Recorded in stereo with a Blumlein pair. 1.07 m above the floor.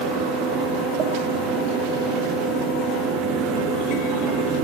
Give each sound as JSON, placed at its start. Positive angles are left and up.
{"t": 0.0, "sound": "a fan", "azimuth_deg": -25, "distance_m": 3.0}